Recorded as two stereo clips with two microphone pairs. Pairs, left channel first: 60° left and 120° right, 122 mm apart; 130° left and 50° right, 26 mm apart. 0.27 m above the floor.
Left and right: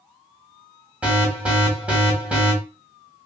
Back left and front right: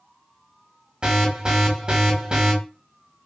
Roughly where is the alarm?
Ahead right.